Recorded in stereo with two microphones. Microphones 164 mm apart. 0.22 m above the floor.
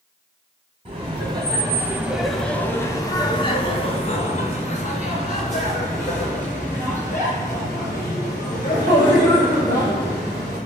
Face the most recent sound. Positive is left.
turn(degrees=50)  # may be behind; listen again after turning